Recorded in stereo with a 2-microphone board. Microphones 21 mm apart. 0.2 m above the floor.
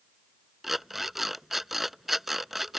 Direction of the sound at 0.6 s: 10° right (ahead or behind).